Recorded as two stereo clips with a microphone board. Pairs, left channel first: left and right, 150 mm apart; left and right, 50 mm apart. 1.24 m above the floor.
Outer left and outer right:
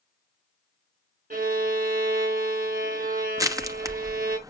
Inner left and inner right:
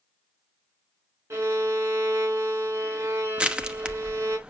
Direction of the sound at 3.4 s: 20° right (ahead or behind).